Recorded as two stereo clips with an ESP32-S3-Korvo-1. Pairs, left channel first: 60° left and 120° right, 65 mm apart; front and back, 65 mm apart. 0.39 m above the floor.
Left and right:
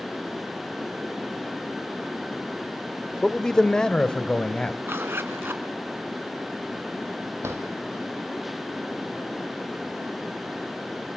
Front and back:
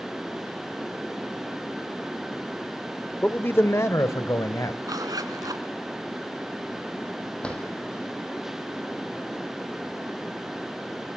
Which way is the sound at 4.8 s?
170° right.